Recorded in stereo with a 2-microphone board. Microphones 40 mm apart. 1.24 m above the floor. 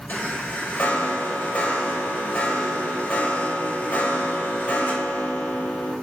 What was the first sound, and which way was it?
A chime, 50° left (ahead or behind).